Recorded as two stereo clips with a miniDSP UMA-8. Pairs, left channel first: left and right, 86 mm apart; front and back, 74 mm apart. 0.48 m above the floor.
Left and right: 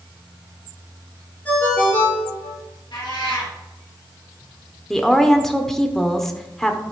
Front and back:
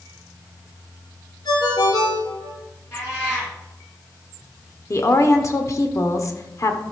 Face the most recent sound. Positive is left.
turn(degrees=5)